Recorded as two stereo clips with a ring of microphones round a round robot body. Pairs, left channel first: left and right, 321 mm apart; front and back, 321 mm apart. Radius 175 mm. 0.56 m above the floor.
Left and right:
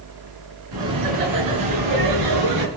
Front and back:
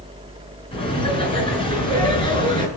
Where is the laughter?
75° right, 6 m.